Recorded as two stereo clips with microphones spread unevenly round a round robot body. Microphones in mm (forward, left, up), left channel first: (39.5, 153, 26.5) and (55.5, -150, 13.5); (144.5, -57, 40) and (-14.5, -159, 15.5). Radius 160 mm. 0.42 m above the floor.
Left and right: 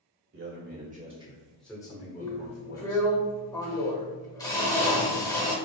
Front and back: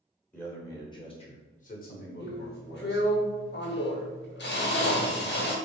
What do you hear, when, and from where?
0.3 s a man speaking: 50° right, 1.4 m; by 3.2 s 65° left, 1.5 m
2.2 s a drill: 15° left, 1.0 m